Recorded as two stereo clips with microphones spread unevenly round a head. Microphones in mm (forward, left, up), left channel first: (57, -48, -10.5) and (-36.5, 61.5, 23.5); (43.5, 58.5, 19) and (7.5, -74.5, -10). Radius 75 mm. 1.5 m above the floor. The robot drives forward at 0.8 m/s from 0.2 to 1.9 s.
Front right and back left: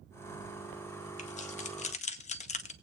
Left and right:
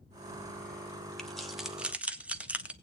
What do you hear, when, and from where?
1.2 s keys jangling: 5° right, 1.1 m; by 2.7 s 15° right, 0.6 m